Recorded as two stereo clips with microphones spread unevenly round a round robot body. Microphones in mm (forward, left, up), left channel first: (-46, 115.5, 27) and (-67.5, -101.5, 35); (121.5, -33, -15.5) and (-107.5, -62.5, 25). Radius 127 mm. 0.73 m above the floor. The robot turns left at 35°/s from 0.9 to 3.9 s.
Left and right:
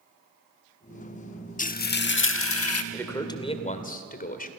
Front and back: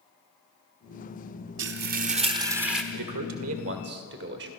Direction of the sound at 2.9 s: 170° left.